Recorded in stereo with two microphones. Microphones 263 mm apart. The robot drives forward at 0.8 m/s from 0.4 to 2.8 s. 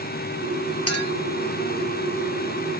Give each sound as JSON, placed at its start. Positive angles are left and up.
{"t": 0.9, "sound": "a clink", "side_deg": 65, "distance_m": 1.5}